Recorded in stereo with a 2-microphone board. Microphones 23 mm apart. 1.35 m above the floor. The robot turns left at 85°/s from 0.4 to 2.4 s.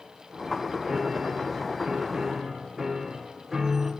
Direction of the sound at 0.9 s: 30° right.